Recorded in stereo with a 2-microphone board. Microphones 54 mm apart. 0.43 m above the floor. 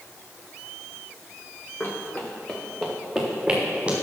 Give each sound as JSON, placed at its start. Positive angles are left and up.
{"t": 1.8, "sound": "running footsteps", "side_deg": 40, "distance_m": 2.0}